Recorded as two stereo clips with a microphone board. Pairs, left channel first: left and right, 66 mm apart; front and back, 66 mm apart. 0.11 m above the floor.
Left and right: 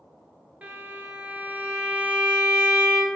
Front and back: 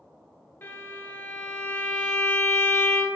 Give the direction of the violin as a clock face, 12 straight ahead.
1 o'clock.